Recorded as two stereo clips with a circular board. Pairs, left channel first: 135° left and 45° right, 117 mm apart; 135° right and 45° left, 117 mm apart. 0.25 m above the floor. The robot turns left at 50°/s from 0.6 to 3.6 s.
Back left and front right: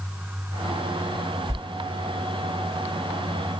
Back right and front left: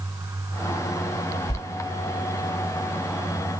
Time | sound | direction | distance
1.5 | a sliding door | 100° right | 0.8 m